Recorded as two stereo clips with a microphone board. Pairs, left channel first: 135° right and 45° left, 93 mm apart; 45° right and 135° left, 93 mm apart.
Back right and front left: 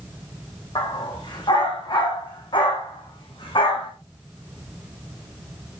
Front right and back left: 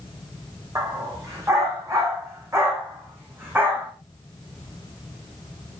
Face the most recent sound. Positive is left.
turn(degrees=-155)